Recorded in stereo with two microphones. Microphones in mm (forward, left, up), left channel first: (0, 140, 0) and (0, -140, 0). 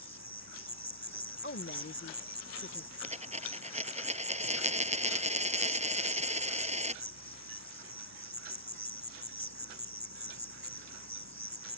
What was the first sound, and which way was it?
An insect, 70° right (ahead or behind).